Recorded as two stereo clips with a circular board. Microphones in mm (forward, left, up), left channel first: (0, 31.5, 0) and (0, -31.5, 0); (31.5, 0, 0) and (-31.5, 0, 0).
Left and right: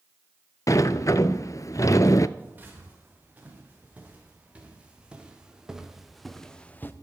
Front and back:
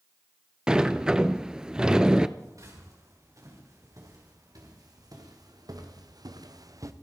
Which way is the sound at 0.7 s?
105° left.